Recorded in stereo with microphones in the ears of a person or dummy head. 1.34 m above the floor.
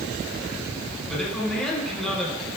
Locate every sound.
1.1 s a man speaking: centre (ahead or behind), 5.5 m